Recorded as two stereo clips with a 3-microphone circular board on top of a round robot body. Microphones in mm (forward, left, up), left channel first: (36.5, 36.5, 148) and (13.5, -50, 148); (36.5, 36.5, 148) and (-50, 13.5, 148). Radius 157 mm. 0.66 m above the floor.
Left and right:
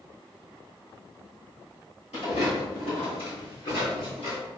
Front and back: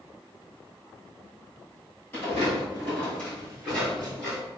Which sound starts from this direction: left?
Footsteps, at 2.1 s.